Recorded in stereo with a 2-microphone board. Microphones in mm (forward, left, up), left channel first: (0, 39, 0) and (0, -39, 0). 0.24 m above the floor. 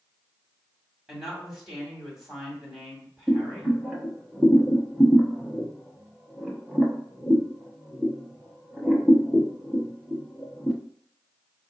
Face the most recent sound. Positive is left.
turn(degrees=-10)  # may be behind; listen again after turning